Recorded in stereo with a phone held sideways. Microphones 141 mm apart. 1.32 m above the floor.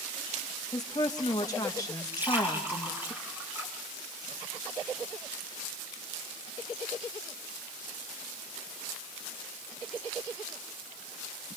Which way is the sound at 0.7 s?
25° left (ahead or behind).